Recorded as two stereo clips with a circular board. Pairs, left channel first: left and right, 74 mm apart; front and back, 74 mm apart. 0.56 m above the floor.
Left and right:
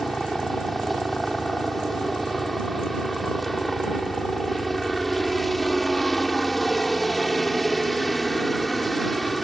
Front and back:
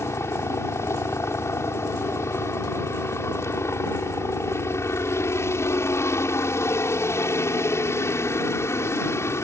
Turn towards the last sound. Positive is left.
turn(degrees=0)